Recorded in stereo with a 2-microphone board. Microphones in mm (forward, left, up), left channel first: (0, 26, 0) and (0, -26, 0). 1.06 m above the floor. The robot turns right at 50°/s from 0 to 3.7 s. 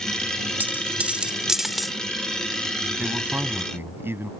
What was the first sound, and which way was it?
A dropped coin, 40° right (ahead or behind).